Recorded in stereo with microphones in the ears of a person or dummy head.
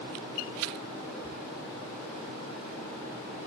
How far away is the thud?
About 4 m.